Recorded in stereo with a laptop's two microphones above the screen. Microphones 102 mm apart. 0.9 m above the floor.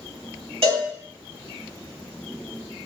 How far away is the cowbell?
About 1.8 m.